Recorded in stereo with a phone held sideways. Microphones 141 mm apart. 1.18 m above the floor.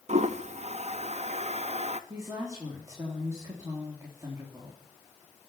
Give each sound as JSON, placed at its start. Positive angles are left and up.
{"t": 0.1, "sound": "a toilet flushing", "side_deg": -55, "distance_m": 0.8}
{"t": 2.1, "sound": "a woman speaking", "side_deg": -20, "distance_m": 3.0}